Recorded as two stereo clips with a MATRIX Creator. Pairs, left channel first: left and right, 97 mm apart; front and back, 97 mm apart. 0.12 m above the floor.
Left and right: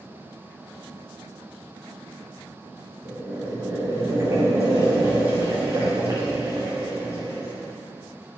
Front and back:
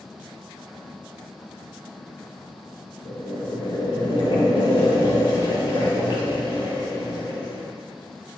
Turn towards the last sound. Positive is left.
turn(degrees=-30)